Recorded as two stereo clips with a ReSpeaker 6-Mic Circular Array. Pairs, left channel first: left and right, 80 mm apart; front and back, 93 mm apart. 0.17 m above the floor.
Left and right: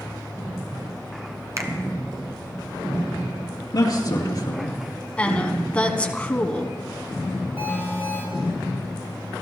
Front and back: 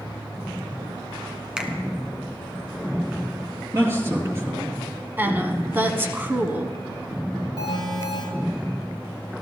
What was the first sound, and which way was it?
A finger snap, 105° right.